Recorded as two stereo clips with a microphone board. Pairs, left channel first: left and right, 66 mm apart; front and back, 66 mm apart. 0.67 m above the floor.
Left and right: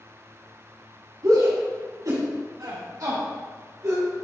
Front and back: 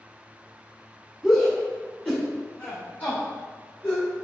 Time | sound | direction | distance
1.2 | a shout | 90° right | 2.0 m